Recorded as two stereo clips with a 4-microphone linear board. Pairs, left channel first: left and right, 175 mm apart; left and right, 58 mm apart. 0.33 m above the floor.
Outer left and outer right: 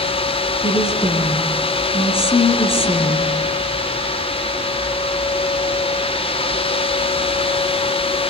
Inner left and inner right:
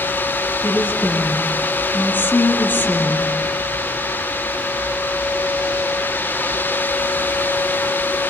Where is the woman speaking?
35° left (ahead or behind), 4 m.